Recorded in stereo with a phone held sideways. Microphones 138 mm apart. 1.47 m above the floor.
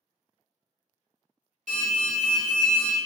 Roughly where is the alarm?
Right.